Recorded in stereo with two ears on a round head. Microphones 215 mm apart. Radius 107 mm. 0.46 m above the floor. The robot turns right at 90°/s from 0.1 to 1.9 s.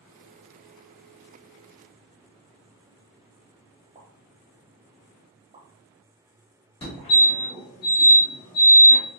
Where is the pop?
25° right (ahead or behind), 0.8 m.